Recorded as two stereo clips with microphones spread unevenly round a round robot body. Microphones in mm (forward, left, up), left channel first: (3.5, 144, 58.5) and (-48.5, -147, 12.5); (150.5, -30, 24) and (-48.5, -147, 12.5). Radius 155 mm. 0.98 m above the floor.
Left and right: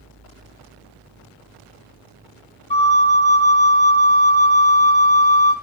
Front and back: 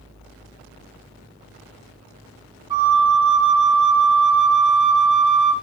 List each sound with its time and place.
2.7 s a flute: 130° left, 0.7 m